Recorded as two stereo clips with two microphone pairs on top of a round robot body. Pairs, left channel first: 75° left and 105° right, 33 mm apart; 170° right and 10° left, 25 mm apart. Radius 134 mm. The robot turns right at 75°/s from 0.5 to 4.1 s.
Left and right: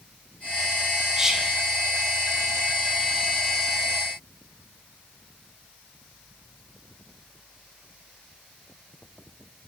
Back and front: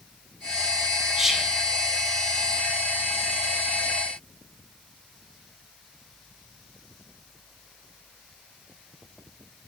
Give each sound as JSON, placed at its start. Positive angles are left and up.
{"t": 1.2, "sound": "whispering", "azimuth_deg": -25, "distance_m": 0.6}